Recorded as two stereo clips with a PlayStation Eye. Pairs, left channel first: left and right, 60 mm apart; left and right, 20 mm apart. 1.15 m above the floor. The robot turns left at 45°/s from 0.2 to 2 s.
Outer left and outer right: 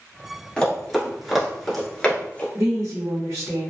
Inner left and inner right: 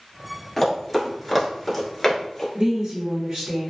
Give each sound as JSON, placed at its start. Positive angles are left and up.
{"t": 0.6, "sound": "running footsteps", "side_deg": 10, "distance_m": 1.3}
{"t": 2.5, "sound": "a woman speaking", "side_deg": -65, "distance_m": 1.1}